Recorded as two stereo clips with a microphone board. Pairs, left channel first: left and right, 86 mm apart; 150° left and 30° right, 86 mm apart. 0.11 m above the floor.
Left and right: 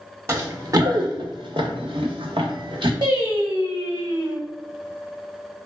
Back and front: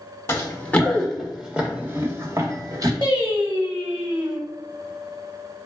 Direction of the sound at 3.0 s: 60° right.